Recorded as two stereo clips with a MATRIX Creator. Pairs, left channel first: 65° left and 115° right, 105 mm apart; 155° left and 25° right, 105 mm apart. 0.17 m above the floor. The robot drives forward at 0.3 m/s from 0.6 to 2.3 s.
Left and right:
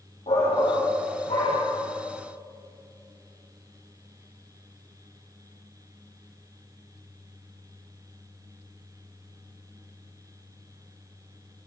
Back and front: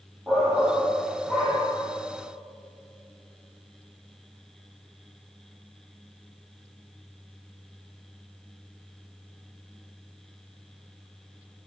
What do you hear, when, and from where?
0.3 s a shout: 60° left, 6.5 m